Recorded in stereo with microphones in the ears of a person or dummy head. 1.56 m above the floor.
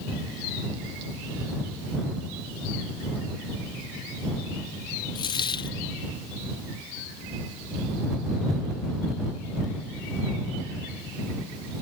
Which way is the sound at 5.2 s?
25° left (ahead or behind).